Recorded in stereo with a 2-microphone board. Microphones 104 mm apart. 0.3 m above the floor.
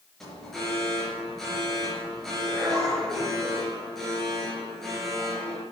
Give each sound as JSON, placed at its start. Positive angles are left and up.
{"t": 0.2, "sound": "an alarm", "side_deg": 5, "distance_m": 6.5}